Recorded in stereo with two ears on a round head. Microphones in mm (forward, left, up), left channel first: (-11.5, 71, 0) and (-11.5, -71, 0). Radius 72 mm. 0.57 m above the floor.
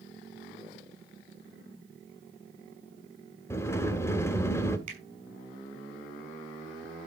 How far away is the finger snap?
About 5 m.